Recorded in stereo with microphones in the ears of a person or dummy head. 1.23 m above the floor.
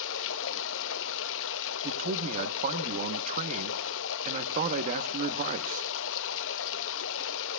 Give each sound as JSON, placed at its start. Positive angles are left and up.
{"t": 0.0, "sound": "running water", "side_deg": 75, "distance_m": 0.8}
{"t": 1.8, "sound": "a man speaking", "side_deg": -40, "distance_m": 0.9}